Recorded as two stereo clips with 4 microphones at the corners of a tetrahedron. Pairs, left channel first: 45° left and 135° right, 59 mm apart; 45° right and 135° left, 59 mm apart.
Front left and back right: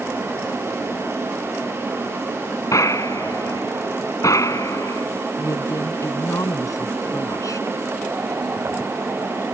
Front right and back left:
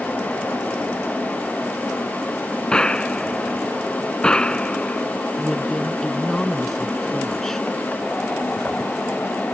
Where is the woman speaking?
40° left.